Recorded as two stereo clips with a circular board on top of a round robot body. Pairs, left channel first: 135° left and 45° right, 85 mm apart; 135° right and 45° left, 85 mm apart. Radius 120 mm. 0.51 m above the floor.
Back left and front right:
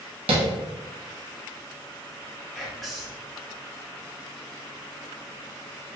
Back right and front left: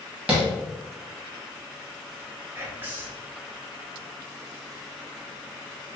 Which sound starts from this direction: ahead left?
Whispering, at 2.5 s.